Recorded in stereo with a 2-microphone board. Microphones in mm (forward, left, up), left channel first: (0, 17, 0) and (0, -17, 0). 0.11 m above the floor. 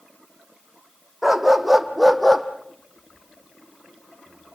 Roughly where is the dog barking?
Centre.